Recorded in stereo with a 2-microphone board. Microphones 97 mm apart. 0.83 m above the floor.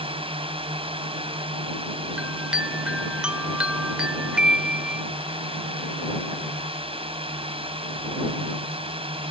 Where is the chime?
10° right (ahead or behind).